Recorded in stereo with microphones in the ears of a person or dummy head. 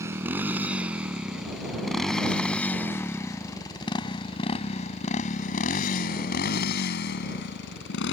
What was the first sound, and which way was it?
A motorcycle, 20° right (ahead or behind).